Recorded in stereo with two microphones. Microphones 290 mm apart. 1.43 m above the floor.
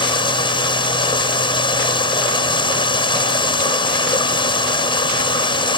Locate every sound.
0.0 s running water: 15° left (ahead or behind)